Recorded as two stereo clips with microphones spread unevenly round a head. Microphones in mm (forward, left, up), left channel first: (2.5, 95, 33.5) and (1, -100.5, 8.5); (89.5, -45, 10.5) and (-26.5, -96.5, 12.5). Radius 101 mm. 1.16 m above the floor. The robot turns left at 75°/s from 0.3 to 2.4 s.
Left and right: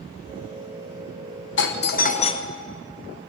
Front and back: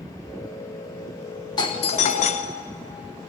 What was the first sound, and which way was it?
A doorbell, 80° left.